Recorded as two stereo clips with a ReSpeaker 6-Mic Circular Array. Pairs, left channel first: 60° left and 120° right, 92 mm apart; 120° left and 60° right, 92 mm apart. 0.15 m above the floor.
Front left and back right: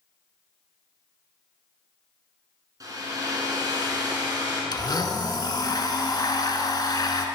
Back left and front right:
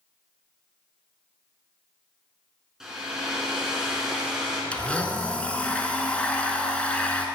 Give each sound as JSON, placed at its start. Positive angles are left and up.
{"t": 2.8, "sound": "a hair dryer", "azimuth_deg": -140, "distance_m": 2.0}
{"t": 4.7, "sound": "a blender", "azimuth_deg": 45, "distance_m": 0.7}